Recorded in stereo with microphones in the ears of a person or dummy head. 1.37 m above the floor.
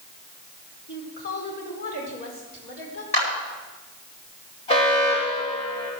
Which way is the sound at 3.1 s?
35° left (ahead or behind).